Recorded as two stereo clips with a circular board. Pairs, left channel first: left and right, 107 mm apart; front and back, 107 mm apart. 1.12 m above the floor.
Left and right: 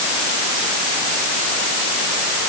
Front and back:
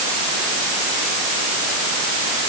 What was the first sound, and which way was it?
Only background noise.